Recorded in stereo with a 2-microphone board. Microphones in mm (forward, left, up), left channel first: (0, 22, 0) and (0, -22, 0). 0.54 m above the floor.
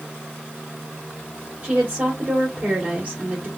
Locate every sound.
1.6 s a woman speaking: 30° right (ahead or behind), 2.5 m